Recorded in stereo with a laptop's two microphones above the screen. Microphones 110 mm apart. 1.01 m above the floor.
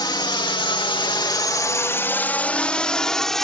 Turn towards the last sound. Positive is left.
turn(degrees=5)  # may be behind; listen again after turning